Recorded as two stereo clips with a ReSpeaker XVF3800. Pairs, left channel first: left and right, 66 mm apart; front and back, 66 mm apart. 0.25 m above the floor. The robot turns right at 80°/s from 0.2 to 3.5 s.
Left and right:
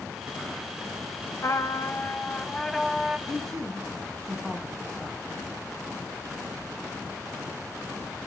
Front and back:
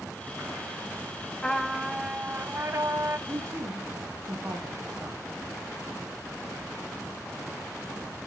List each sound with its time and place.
1.4 s a trumpet: 65° left, 0.5 m; by 3.2 s 150° right, 0.5 m
3.3 s a man speaking: 155° left, 1.7 m; by 5.2 s 170° left, 1.7 m